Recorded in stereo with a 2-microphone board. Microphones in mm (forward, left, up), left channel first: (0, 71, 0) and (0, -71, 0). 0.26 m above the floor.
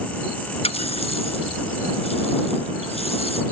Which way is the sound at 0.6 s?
45° left (ahead or behind).